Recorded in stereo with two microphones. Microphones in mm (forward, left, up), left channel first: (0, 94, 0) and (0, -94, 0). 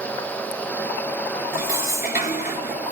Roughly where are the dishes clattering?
Left.